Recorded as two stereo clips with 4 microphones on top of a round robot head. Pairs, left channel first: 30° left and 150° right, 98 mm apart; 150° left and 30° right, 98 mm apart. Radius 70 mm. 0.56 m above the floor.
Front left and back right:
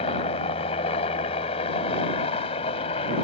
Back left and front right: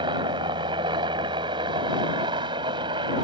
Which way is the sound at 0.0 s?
10° left.